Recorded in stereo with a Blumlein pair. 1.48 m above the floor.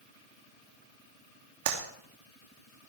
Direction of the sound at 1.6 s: 50° right.